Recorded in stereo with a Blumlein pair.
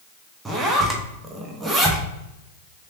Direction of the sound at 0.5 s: 10° right.